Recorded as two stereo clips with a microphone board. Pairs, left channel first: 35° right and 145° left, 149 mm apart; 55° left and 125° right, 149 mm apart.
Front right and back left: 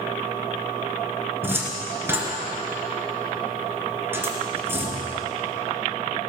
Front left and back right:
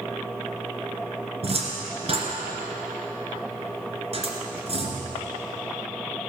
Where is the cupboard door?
145° right, 2 m.